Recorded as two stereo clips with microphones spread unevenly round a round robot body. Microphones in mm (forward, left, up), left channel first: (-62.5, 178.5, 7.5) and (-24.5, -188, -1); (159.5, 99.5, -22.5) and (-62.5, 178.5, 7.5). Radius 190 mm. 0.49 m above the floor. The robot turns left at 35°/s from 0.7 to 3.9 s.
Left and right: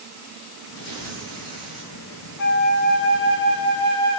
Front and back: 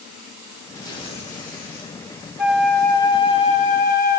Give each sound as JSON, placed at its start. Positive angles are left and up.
{"t": 0.8, "sound": "tearing paper", "azimuth_deg": 60, "distance_m": 1.9}
{"t": 2.4, "sound": "a flute", "azimuth_deg": 70, "distance_m": 0.5}